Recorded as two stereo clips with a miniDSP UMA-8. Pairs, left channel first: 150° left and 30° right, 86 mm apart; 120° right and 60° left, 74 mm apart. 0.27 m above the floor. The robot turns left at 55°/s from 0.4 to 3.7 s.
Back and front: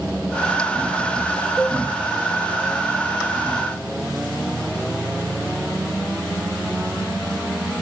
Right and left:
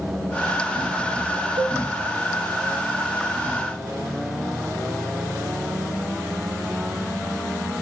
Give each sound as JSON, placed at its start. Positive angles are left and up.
{"t": 1.6, "sound": "a cowbell", "azimuth_deg": 65, "distance_m": 1.8}